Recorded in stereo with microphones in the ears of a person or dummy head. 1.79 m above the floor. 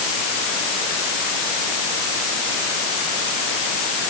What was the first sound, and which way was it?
Only background noise.